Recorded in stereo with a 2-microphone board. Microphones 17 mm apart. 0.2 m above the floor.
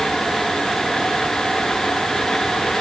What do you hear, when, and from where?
Only background noise.